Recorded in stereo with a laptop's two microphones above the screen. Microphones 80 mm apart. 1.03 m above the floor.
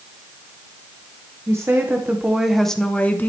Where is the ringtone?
No ringtone in this recording.